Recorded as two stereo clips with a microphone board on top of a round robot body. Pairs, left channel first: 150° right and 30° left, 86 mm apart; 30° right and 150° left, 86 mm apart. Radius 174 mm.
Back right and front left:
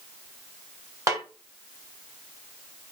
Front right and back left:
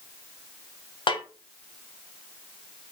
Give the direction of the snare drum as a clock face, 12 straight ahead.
1 o'clock.